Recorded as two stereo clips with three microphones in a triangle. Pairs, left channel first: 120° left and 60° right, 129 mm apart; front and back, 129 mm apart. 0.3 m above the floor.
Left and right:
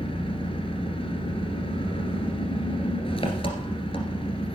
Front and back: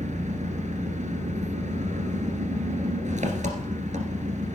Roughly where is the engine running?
Behind.